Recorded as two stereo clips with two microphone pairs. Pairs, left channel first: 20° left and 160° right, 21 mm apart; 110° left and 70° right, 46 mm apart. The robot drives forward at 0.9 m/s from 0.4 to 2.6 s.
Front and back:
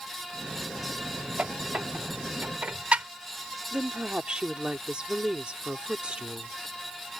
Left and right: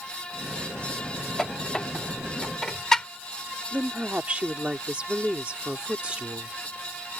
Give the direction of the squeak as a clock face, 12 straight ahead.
6 o'clock.